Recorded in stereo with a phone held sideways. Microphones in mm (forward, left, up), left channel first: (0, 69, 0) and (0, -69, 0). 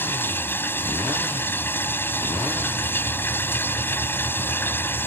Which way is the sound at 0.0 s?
15° left (ahead or behind).